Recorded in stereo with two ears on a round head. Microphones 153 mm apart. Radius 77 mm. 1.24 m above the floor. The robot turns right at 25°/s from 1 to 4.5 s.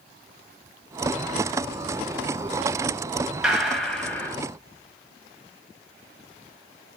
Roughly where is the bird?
No bird in this recording.